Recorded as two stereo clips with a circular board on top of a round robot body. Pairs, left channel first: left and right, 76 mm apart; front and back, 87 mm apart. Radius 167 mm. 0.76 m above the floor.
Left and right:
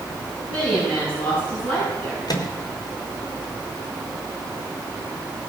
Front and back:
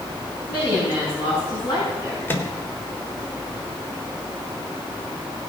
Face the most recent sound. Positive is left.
turn(degrees=65)